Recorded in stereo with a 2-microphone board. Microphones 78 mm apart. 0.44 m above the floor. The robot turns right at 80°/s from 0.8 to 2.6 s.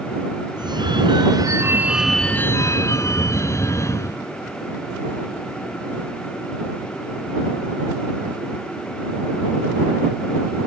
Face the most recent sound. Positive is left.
turn(degrees=40)